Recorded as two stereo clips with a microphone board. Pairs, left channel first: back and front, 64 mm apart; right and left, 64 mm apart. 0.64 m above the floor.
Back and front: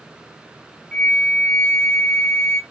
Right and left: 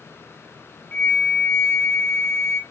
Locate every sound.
0.9 s a flute: 120° right, 0.5 m